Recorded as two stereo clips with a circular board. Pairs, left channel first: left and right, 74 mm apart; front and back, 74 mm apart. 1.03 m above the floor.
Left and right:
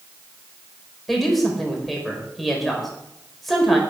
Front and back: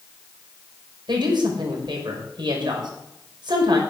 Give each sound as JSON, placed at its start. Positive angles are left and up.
{"t": 1.1, "sound": "a woman speaking", "azimuth_deg": 180, "distance_m": 4.5}